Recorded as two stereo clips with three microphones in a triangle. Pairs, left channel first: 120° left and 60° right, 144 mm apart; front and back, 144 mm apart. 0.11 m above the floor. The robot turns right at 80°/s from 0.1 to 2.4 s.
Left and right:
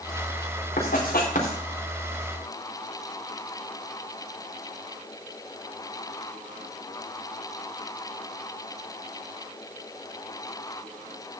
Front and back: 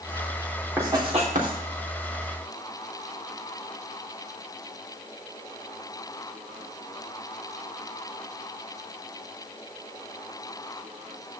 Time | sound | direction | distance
0.8 | writing | 100° left | 4.5 m